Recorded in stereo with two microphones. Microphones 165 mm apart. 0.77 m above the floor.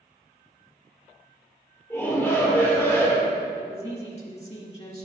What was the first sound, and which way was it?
A shout, 15° left (ahead or behind).